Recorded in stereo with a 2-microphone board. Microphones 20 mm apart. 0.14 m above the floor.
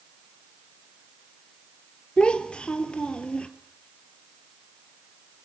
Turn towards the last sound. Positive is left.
turn(degrees=55)  # may be behind; listen again after turning